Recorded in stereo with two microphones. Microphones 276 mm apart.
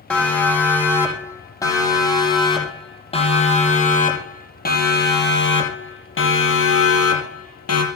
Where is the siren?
5° left (ahead or behind), 8.5 m; by 7.8 s 65° left (ahead or behind), 5.5 m.